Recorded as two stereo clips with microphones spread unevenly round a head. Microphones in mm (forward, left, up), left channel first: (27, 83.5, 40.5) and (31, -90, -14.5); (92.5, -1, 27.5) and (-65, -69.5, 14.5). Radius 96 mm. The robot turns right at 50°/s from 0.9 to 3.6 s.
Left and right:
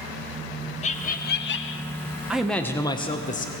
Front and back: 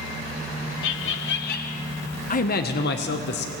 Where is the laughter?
35° left, 0.9 m; by 1.9 s 80° left, 0.9 m.